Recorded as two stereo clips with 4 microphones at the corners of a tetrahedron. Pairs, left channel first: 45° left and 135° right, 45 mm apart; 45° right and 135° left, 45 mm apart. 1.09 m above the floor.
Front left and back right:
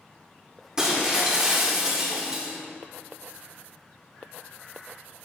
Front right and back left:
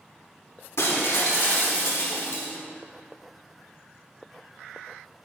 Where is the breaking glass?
60° right, 1.4 m.